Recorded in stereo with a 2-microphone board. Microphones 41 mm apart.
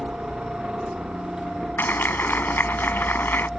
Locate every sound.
0.0 s a helicopter: 25° right (ahead or behind)
1.8 s a clap: 55° left (ahead or behind)